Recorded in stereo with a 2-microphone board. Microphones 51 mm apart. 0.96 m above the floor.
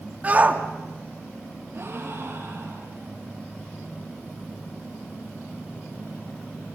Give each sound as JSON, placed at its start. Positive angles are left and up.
{"t": 0.2, "sound": "a shout", "side_deg": -30, "distance_m": 1.7}
{"t": 1.7, "sound": "a gasp", "side_deg": -55, "distance_m": 8.5}